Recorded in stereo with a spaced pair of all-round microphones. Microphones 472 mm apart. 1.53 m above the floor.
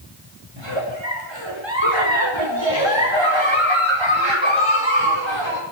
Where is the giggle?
65° right (ahead or behind), 5 m.